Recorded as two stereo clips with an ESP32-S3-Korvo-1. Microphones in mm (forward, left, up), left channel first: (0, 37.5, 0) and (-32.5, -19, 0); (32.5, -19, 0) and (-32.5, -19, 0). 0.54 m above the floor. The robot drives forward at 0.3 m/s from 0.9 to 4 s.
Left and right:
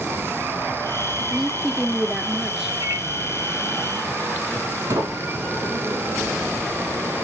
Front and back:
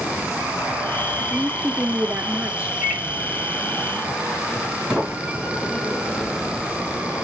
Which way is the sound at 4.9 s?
100° right.